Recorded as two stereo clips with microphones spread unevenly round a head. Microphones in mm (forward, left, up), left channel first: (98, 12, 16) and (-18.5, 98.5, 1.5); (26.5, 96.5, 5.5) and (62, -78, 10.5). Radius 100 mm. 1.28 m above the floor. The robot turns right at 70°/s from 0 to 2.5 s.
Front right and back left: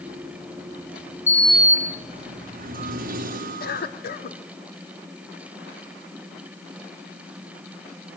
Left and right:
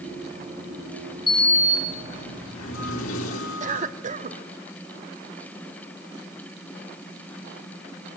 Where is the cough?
30° right, 2.5 m.